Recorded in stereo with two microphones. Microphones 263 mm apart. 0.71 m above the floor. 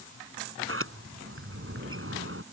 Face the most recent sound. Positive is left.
turn(degrees=-55)  # may be behind; listen again after turning